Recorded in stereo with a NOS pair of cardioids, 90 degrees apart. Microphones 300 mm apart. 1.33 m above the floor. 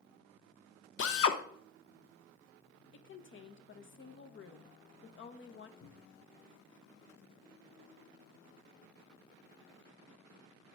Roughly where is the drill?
Ahead left.